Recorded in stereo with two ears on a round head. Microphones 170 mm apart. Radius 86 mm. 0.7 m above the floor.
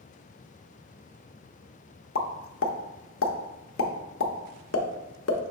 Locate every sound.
2.1 s a pop: 75° left (ahead or behind), 0.6 m